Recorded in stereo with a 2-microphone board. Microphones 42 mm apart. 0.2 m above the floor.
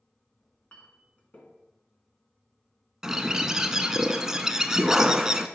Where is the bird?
15° right (ahead or behind), 0.5 m.